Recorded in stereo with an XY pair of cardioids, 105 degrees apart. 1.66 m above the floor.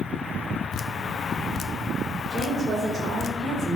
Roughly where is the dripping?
Ahead left.